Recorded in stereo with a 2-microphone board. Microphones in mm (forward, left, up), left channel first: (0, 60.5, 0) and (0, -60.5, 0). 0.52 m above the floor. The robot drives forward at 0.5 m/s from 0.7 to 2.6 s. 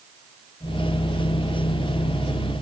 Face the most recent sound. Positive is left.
No sound to turn to.